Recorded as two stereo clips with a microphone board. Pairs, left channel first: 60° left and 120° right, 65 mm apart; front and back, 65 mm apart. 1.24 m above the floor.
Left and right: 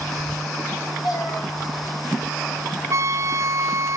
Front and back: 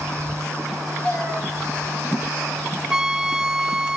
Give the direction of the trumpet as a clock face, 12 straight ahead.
4 o'clock.